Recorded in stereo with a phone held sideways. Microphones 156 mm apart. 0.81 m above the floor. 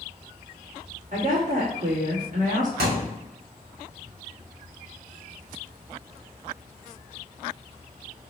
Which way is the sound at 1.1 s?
55° right (ahead or behind).